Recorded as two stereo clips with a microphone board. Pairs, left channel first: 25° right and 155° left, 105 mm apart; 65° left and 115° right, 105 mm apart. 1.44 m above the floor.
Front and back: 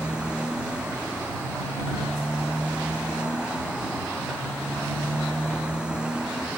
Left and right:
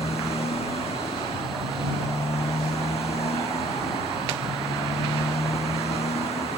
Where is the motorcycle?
75° left.